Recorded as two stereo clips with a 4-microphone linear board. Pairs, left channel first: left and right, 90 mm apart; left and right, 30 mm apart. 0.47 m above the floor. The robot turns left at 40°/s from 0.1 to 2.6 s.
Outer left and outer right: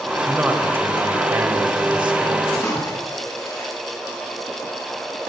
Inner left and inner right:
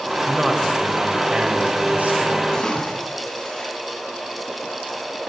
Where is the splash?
30° left (ahead or behind), 4.5 m.